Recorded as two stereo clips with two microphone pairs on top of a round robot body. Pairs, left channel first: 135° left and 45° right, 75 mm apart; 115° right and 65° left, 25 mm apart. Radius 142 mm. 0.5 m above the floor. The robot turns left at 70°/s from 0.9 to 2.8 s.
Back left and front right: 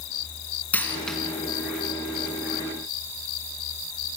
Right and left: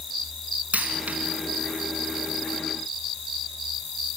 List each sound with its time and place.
0.7 s a dropped coin: 65° left, 3 m; by 1.2 s 45° left, 3 m